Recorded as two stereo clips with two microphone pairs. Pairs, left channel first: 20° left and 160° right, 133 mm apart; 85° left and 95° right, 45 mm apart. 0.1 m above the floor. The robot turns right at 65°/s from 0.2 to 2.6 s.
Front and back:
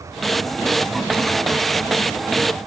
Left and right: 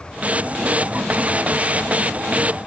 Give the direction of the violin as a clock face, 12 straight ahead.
I don't hear a violin.